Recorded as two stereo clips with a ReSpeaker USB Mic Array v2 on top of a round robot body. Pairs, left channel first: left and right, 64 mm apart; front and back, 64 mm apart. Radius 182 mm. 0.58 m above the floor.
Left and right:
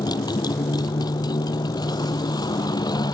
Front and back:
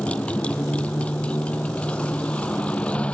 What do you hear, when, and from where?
0.0 s a motorcycle: 70° left